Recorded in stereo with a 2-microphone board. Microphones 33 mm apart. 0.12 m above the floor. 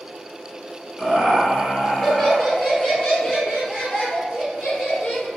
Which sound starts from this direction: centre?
Laughter, at 1.0 s.